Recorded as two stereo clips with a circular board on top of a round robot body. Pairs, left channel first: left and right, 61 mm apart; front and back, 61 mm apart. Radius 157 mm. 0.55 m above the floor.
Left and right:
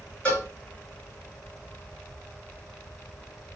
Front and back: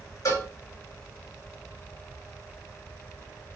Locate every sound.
0.2 s a cowbell: 20° left, 3 m